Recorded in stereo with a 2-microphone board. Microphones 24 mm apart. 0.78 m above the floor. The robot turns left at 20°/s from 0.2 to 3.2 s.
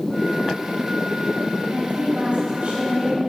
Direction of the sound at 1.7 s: 115° right.